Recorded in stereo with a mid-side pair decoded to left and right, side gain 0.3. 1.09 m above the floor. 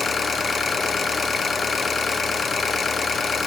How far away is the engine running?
About 0.9 m.